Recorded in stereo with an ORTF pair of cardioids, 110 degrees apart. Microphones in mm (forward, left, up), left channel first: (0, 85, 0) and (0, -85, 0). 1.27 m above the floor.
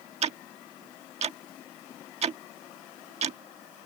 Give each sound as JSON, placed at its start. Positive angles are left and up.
{"t": 0.2, "sound": "ticking", "azimuth_deg": -40}